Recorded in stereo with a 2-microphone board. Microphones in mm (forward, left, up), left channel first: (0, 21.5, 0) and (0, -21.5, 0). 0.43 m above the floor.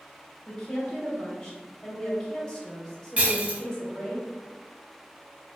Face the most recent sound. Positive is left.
turn(degrees=-35)  # may be behind; listen again after turning